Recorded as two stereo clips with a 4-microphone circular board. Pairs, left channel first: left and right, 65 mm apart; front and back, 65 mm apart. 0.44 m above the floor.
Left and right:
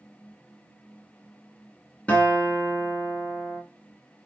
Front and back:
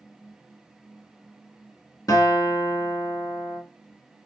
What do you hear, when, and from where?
2.1 s a guitar: 20° left, 0.9 m